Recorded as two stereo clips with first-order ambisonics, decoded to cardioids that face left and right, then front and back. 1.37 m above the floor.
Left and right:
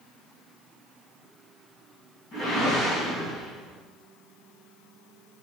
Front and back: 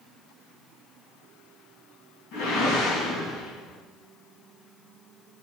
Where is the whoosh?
35° left, 4 m.